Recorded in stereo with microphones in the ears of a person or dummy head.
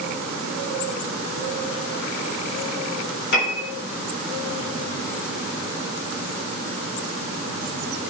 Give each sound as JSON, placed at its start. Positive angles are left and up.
{"t": 3.3, "sound": "a piano", "side_deg": 60, "distance_m": 3.5}